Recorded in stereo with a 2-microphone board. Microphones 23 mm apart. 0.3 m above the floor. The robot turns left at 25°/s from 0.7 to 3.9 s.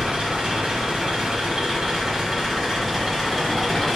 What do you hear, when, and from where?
0.0 s an engine running: 120° right, 0.9 m; by 4.0 s 160° left, 0.9 m